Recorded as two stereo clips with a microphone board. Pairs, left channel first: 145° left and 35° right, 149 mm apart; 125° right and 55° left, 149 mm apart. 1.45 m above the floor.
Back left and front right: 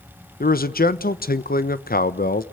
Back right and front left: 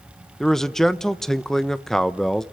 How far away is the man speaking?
About 1.1 m.